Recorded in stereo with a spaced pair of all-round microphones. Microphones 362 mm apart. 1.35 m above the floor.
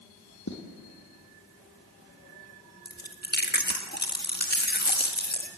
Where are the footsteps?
50° left (ahead or behind), 3 m.